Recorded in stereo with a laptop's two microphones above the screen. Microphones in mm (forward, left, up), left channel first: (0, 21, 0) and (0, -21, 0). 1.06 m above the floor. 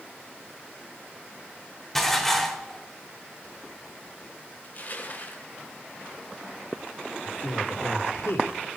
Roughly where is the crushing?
Left.